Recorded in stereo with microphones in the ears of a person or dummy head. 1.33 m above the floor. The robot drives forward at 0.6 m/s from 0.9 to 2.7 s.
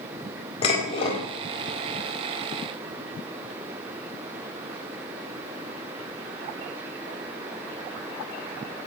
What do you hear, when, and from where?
0.6 s dishes clattering: 25° left (ahead or behind), 4.5 m